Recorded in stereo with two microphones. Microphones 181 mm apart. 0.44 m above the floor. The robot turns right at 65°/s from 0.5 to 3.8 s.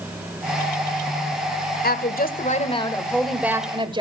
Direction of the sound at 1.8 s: 85° left.